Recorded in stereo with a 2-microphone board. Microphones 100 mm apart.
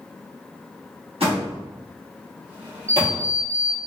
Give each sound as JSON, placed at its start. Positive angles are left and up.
{"t": 1.2, "sound": "a door slam", "side_deg": -75, "distance_m": 1.3}
{"t": 2.9, "sound": "an alarm clock", "side_deg": -25, "distance_m": 0.8}